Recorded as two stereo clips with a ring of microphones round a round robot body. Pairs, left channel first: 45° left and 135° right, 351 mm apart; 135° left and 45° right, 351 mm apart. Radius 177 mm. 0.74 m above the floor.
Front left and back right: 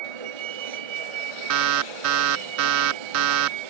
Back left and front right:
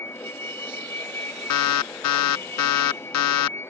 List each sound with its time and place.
0.0 s a vehicle: 140° right
1.5 s an alarm: 175° left